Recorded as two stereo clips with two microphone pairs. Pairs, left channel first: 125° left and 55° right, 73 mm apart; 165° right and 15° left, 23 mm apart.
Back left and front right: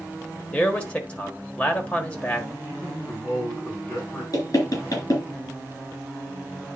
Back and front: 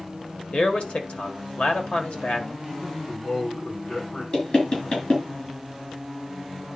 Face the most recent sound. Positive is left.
turn(degrees=160)